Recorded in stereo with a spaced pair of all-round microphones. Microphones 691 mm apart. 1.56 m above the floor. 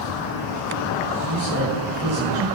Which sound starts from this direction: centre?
A man speaking, at 1.3 s.